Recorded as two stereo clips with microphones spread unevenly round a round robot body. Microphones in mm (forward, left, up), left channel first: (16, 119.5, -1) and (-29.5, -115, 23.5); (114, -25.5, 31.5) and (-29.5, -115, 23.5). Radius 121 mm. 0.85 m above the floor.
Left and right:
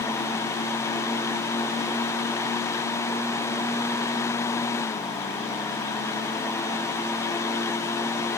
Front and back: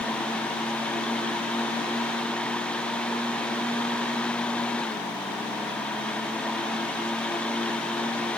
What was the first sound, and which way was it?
Only background noise.